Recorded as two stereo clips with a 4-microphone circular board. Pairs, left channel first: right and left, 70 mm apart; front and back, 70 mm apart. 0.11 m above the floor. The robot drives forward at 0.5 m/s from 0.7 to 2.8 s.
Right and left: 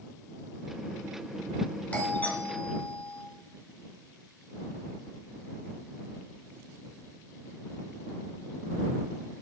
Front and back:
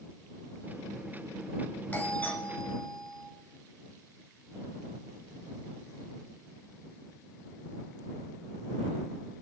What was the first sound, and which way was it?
A doorbell, 45° right.